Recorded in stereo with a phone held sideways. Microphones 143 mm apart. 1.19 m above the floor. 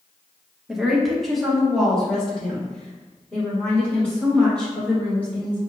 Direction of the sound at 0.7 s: 5° right (ahead or behind).